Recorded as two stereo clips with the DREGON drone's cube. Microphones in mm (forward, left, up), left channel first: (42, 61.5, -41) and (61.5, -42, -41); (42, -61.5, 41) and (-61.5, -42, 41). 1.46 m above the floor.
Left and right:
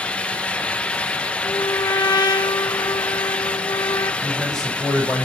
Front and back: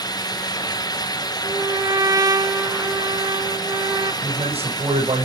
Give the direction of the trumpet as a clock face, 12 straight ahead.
8 o'clock.